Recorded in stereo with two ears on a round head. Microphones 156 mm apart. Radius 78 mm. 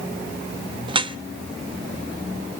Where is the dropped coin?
No dropped coin in this recording.